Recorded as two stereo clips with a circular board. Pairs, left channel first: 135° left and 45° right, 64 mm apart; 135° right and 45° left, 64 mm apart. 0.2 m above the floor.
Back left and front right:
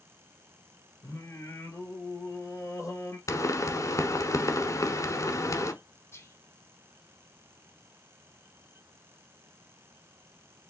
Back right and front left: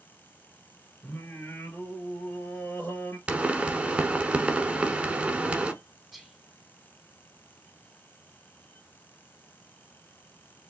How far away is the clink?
No clink in this recording.